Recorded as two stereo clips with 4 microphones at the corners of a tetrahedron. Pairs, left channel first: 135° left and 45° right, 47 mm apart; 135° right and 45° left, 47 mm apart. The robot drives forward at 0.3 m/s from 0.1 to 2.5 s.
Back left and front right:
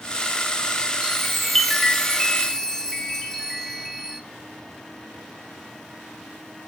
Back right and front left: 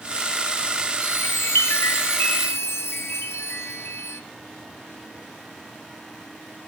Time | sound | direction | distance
1.0 | a chime | 125° right | 0.7 m